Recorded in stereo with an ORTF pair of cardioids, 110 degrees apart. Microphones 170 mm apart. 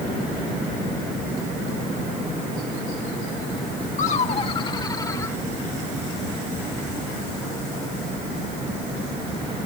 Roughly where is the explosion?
I don't hear an explosion.